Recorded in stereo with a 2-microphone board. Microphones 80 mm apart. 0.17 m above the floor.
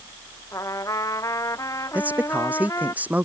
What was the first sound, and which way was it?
A trumpet, 40° left (ahead or behind).